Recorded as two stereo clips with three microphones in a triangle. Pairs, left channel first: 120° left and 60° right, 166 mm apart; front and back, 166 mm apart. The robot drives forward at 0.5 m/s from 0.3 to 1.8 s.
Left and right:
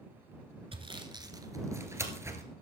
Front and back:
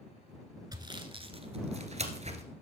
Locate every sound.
0.7 s sawing: 115° right, 1.3 m; by 2.4 s 135° right, 1.5 m